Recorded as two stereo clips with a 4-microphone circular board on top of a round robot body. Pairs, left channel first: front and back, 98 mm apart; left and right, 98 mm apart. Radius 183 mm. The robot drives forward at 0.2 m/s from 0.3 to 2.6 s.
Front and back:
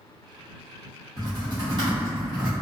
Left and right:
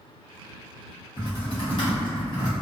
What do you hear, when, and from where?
1.2 s typing on a keyboard: 125° left, 0.8 m; by 2.5 s 140° left, 1.0 m